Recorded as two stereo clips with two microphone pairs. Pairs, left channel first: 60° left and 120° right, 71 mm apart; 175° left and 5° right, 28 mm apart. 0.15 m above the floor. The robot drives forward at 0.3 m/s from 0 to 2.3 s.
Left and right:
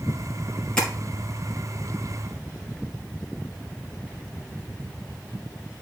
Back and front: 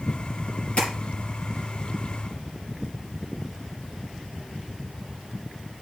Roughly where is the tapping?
Behind left.